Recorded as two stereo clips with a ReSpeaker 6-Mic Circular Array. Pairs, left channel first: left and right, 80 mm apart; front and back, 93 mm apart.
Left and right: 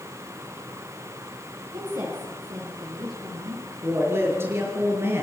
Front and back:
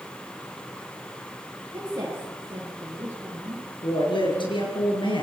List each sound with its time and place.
1.7 s a woman speaking: 125° right, 9.5 m; by 3.7 s 115° right, 9 m
3.8 s a woman speaking: 30° right, 8 m